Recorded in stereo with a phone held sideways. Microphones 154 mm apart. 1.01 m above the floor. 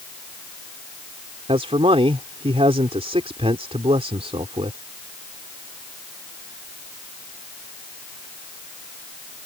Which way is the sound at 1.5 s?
40° right (ahead or behind).